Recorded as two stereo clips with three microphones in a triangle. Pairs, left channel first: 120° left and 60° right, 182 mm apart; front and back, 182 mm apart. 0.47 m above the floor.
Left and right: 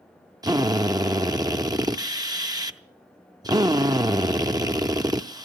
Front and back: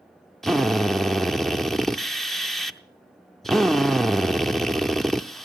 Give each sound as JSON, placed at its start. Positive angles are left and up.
{"t": 0.4, "sound": "a drill", "azimuth_deg": -90, "distance_m": 0.7}